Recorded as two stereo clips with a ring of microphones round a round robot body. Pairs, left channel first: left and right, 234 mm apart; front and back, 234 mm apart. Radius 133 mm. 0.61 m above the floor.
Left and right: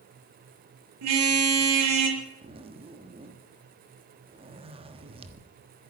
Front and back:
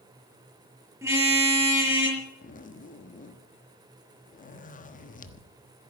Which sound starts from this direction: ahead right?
A zipper, at 2.4 s.